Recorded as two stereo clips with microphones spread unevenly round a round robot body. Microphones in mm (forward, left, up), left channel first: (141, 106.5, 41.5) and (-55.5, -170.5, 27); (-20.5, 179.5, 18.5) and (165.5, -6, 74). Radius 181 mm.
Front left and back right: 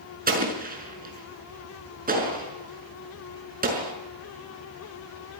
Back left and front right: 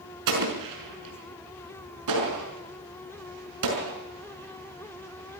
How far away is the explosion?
About 6 m.